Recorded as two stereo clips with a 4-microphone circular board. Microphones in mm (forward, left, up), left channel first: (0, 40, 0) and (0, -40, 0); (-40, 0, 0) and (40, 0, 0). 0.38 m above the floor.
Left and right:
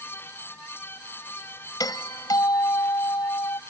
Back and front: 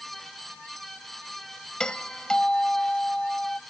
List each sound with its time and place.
1.8 s a doorbell: 100° left